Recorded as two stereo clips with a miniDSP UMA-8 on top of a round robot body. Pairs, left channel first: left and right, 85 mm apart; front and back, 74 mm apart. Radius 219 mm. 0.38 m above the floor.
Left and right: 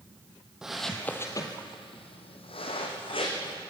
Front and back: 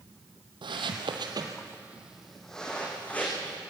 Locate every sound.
0.6 s footsteps: 175° right, 1.5 m; by 3.6 s 70° left, 3 m